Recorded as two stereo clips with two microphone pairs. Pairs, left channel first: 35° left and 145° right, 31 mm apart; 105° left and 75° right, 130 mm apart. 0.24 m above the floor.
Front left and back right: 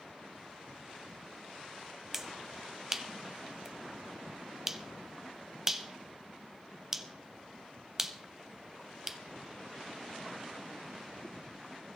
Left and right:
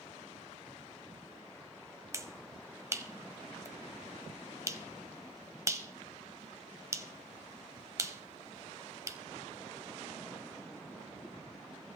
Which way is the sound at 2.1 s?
95° right.